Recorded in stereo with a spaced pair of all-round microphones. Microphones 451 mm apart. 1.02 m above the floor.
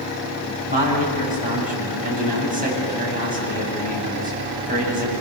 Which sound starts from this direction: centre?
A man speaking, at 0.7 s.